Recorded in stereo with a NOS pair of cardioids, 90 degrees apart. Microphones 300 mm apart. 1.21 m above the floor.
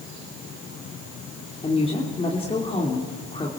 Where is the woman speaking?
20° left, 2.5 m.